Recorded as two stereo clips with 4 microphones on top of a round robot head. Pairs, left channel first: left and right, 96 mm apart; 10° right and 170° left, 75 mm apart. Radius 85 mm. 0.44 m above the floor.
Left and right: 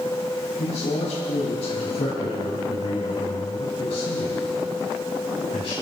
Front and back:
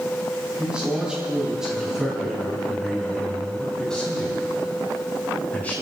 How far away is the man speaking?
About 5 m.